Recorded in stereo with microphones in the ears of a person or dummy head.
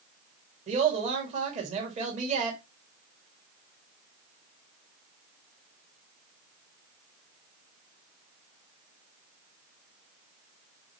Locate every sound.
0.7 s a woman speaking: 40° right (ahead or behind), 1.9 m